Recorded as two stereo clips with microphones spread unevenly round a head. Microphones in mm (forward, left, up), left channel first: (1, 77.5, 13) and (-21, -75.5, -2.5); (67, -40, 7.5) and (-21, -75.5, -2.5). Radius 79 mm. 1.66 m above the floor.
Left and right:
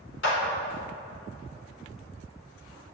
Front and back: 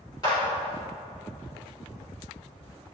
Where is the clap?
90° left, 4.5 m.